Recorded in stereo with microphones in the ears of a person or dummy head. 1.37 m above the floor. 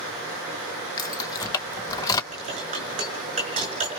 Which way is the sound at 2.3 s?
35° right (ahead or behind).